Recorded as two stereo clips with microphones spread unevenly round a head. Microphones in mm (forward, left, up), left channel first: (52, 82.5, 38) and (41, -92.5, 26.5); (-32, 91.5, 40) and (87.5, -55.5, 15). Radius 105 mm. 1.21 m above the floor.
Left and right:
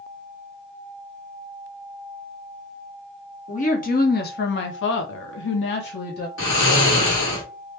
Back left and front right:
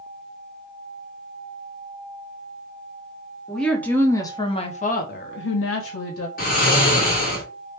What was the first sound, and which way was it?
A woman speaking, 40° left.